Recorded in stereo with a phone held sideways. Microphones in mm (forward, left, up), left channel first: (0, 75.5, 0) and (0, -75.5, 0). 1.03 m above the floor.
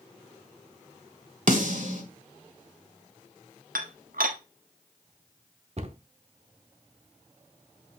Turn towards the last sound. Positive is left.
turn(degrees=-45)  # may be behind; listen again after turning